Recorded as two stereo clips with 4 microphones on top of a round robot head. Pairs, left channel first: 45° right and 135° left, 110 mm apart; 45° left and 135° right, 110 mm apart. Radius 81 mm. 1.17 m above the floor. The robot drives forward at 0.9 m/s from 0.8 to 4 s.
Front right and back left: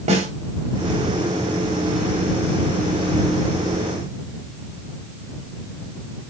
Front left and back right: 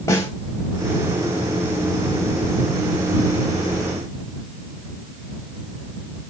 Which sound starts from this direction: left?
A snare drum, at 0.1 s.